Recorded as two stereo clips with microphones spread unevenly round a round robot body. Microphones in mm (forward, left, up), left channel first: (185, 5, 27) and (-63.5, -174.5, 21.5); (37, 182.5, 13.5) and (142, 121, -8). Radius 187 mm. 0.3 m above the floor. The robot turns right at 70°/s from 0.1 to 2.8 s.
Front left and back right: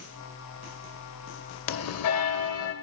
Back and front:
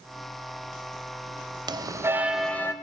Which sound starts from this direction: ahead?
A bell, at 1.7 s.